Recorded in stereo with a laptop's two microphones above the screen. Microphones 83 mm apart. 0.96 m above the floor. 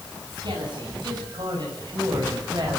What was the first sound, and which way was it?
A man speaking, 60° right (ahead or behind).